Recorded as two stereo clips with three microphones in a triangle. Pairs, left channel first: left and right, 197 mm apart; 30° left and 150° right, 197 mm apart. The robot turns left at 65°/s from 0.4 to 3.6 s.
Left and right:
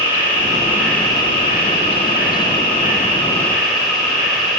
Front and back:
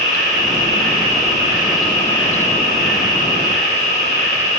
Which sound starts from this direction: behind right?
An insect, at 0.0 s.